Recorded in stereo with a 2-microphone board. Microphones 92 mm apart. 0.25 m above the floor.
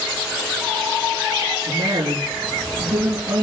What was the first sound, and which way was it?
A woman speaking, 65° right (ahead or behind).